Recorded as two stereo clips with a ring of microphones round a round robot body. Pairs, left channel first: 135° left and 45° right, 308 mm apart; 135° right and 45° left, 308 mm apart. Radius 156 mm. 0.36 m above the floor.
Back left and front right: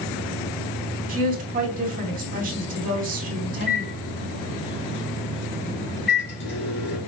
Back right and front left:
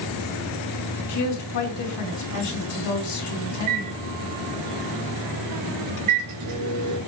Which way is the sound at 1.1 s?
110° right.